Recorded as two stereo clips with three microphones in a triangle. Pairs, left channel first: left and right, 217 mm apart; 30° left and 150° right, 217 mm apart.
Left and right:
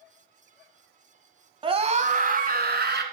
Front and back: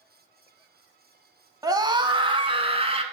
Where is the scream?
105° right, 1.1 m; by 3.0 s 95° right, 1.6 m.